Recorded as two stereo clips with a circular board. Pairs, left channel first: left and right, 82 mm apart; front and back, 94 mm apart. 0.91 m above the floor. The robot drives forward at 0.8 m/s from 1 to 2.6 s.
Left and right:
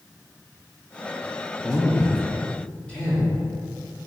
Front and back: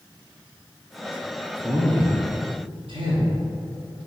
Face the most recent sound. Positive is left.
turn(degrees=165)